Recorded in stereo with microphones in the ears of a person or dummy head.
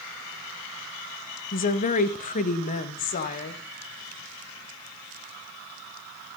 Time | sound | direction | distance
1.5 | a woman speaking | 40° left (ahead or behind) | 1.3 m